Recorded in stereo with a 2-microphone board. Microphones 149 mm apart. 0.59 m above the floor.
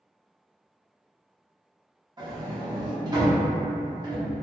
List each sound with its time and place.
2.2 s a sliding door: 30° right (ahead or behind), 0.9 m